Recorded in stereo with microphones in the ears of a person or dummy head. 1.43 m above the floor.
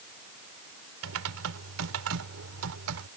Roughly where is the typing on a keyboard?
Right.